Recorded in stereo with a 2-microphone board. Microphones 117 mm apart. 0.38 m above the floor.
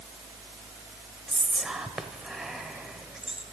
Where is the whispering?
5° right (ahead or behind), 1.3 m.